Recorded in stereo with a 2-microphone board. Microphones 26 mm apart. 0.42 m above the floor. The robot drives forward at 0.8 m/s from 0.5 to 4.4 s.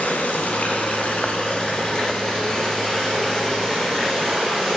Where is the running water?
75° left (ahead or behind), 1.1 m; by 4.8 s 20° left (ahead or behind), 3.5 m.